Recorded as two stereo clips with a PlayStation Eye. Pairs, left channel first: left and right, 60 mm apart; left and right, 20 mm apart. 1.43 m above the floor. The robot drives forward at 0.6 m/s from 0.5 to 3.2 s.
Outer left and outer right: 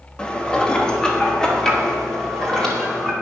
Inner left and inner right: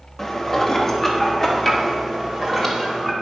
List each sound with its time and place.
0.2 s dishes clattering: 15° left (ahead or behind), 1.3 m; by 3.1 s 5° left (ahead or behind), 3 m